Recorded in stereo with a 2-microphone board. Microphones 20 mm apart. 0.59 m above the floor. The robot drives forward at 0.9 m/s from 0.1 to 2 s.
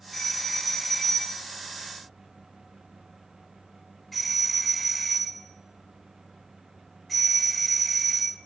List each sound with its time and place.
0.1 s a doorbell: 10° left (ahead or behind), 1.7 m